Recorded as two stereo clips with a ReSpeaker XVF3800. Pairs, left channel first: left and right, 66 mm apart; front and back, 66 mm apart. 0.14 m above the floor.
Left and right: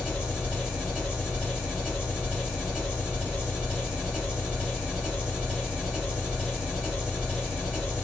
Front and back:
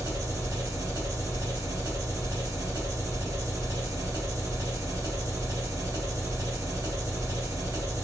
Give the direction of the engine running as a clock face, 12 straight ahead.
6 o'clock.